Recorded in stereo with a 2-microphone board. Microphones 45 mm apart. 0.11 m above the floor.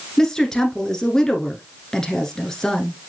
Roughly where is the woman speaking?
Centre.